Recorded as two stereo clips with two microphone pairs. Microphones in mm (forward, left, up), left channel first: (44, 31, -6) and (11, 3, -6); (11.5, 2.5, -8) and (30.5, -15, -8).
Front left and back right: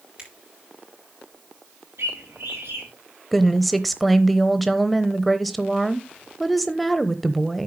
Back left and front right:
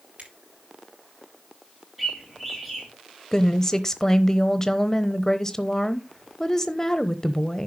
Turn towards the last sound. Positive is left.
turn(degrees=120)